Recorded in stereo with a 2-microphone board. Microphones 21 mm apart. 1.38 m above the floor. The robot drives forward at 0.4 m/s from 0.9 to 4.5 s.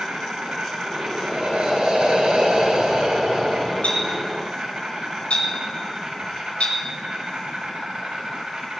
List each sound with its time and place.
0.0 s an insect: 70° right (ahead or behind), 2 m; by 8.8 s 45° right (ahead or behind), 2.5 m
1.2 s breathing: 80° right, 3 m; by 3.7 s 65° right (ahead or behind), 3 m
3.8 s a clink: 85° left, 5 m